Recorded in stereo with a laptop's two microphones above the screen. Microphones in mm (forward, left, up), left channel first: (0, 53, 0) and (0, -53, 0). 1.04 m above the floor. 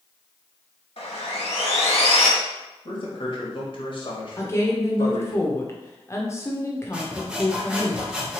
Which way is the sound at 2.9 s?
50° left (ahead or behind).